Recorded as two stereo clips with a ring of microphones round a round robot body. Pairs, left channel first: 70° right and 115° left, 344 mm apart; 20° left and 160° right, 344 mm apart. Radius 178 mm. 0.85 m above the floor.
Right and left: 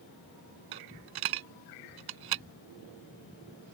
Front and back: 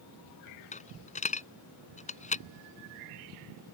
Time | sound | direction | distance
0.7 | a dropped coin | 90° left | ?